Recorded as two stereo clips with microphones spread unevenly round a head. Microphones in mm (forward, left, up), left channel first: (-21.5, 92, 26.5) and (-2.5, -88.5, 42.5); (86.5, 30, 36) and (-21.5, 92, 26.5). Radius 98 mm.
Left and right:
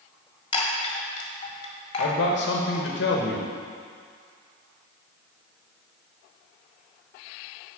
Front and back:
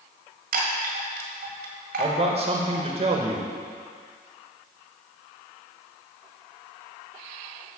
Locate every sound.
0.5 s a chime: 160° left, 1.6 m
2.0 s a man speaking: 110° left, 1.3 m